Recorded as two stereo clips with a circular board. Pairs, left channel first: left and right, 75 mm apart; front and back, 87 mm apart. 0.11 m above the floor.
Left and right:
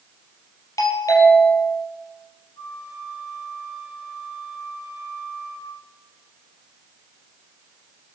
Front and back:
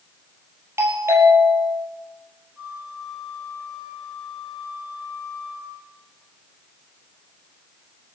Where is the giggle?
No giggle in this recording.